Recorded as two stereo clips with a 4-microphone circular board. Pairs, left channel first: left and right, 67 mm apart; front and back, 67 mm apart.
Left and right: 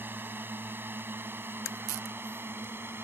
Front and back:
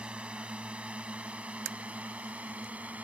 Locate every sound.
0.0 s a drone: 120° right; by 3.0 s 125° right